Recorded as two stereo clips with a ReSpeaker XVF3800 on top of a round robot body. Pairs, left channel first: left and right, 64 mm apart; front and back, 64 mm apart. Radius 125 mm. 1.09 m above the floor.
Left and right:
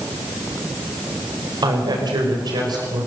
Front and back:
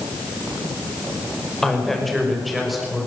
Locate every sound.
1.6 s a woman speaking: 85° right, 5 m; by 3.1 s 95° right, 5.5 m